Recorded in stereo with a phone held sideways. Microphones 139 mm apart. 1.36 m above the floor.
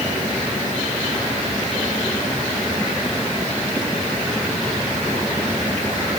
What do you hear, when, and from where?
Only background noise.